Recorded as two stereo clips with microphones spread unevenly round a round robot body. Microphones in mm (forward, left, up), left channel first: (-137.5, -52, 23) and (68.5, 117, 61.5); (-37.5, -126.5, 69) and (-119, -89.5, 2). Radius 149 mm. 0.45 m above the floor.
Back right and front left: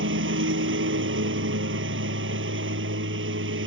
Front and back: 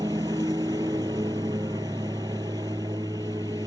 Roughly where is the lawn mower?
Left.